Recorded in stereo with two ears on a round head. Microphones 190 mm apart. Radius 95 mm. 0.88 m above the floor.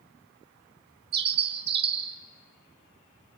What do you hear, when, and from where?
1.1 s a bird: 50° right (ahead or behind), 1.5 m